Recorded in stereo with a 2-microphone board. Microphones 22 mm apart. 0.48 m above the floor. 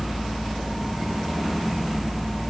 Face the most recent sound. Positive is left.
No sound to turn to.